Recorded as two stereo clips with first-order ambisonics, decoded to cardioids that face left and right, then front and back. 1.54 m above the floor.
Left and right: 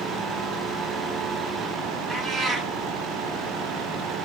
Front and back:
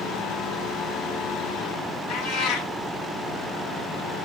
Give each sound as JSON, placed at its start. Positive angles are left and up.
{"t": 2.1, "sound": "a cat meowing", "azimuth_deg": 0, "distance_m": 1.2}